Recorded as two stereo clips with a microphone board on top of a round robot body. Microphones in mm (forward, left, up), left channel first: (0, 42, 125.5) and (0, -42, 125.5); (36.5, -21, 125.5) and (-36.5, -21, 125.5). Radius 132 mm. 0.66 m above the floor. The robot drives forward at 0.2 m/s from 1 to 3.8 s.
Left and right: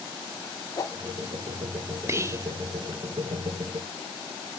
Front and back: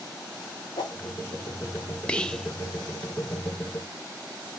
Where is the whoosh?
35° left, 0.7 m.